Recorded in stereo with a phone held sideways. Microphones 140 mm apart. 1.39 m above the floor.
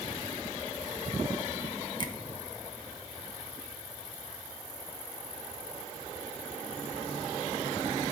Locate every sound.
2.0 s a finger snap: 30° left (ahead or behind), 1.5 m